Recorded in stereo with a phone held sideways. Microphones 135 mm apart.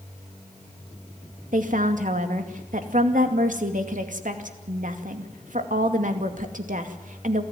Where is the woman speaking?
75° right (ahead or behind), 2.5 m.